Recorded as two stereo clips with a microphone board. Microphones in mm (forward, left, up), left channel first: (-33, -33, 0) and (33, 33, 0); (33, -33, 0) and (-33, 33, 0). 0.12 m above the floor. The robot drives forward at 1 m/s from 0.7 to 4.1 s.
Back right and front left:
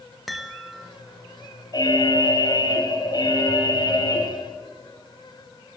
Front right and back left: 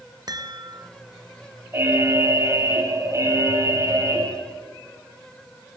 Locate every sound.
0.3 s a chime: 135° left, 2 m; by 0.9 s 140° left, 2 m
1.7 s an alarm: 170° right, 4.5 m